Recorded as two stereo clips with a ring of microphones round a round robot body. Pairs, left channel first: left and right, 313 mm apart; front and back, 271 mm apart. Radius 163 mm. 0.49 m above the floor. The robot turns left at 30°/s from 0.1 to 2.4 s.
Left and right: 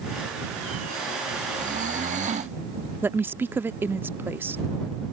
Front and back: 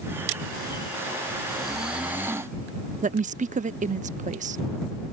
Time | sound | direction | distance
1.5 | snoring | 85° right | ?
3.0 | a woman speaking | 165° right | ?